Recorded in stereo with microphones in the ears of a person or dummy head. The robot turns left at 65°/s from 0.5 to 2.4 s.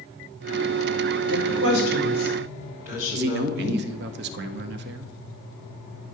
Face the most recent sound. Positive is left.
turn(degrees=-60)  # may be behind; listen again after turning